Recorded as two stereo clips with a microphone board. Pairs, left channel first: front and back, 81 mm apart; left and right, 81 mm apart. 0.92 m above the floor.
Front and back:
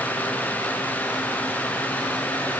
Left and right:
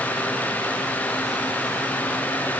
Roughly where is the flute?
No flute in this recording.